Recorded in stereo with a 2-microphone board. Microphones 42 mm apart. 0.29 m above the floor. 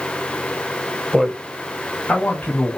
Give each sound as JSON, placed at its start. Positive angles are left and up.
{"t": 1.1, "sound": "a man speaking", "side_deg": -5, "distance_m": 0.9}